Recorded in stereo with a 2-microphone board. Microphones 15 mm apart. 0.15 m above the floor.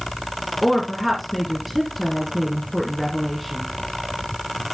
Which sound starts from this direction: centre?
A woman speaking, at 0.6 s.